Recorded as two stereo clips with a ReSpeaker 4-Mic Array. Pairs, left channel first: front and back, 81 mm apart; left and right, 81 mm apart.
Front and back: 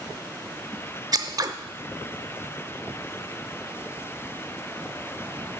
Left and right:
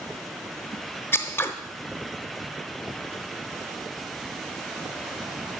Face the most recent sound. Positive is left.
turn(degrees=150)